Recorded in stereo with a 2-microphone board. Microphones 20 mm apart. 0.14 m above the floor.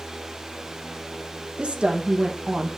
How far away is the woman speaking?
About 4 m.